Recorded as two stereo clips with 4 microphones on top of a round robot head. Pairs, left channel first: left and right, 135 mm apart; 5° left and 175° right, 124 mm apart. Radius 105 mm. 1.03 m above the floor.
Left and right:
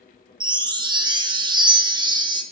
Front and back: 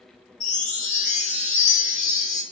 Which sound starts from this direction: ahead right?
A chime, at 0.4 s.